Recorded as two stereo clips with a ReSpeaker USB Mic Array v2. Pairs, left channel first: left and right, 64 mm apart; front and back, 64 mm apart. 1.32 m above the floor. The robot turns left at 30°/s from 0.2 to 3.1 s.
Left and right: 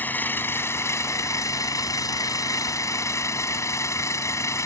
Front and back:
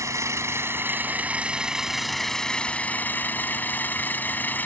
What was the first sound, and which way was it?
An engine running, 145° left.